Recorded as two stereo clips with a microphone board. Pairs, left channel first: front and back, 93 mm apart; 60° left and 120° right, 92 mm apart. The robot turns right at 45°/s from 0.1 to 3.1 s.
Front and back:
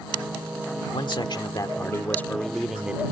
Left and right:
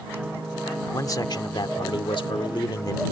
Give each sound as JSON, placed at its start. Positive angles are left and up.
{"t": 0.9, "sound": "a man speaking", "azimuth_deg": 10}